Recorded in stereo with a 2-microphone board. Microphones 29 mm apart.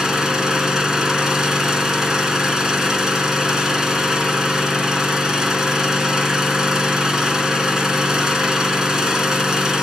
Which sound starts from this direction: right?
An engine running, at 0.0 s.